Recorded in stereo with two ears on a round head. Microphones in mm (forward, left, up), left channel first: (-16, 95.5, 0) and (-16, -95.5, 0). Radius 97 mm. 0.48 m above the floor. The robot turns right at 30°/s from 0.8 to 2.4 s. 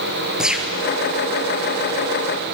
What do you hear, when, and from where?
0.4 s a gunshot: 5° right (ahead or behind), 2.5 m